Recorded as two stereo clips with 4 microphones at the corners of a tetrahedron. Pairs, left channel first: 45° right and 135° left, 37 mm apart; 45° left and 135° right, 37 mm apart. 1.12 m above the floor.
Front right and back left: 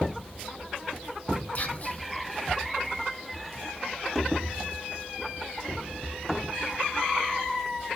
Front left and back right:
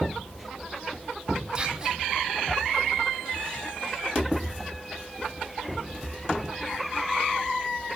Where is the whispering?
75° right, 0.6 m.